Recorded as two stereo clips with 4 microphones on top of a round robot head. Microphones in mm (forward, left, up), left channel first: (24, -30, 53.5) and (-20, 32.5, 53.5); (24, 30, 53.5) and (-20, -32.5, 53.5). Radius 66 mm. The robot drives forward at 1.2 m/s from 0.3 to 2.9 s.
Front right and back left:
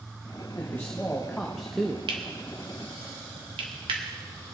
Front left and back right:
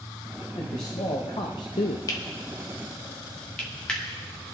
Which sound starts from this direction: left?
Cutlery clinking, at 2.1 s.